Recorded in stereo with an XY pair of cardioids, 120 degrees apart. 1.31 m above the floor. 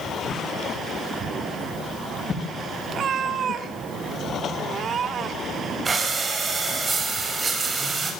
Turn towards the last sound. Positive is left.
turn(degrees=-25)